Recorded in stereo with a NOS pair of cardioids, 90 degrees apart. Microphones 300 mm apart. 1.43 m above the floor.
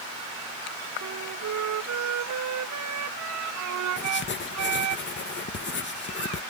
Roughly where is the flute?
Ahead right.